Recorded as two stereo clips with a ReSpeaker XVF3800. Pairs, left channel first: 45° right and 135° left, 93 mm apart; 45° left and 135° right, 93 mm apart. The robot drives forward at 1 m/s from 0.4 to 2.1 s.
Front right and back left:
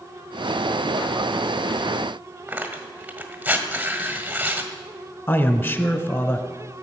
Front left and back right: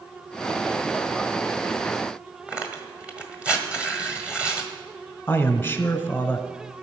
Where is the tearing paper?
175° left, 1.6 m.